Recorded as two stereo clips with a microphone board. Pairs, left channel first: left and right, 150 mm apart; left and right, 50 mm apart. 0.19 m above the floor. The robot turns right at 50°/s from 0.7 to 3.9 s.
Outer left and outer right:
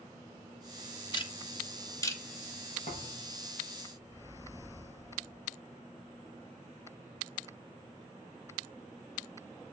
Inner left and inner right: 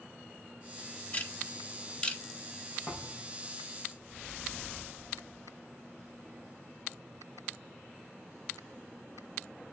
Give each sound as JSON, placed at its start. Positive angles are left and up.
{"t": 1.1, "sound": "ticking", "side_deg": 35, "distance_m": 1.4}
{"t": 2.9, "sound": "a thud", "side_deg": 60, "distance_m": 5.5}